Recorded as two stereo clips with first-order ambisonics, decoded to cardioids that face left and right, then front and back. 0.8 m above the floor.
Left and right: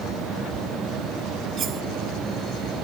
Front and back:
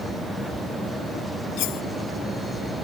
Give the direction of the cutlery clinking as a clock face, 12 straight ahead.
1 o'clock.